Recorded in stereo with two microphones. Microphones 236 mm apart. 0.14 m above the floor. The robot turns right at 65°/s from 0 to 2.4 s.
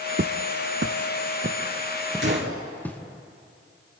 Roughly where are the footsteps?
Right.